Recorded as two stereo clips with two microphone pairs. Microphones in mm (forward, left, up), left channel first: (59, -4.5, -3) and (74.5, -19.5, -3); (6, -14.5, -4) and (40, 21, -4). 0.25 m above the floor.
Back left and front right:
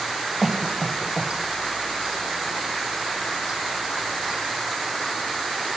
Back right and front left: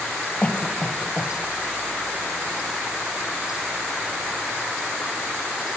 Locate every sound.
0.4 s a cough: 120° right, 1.2 m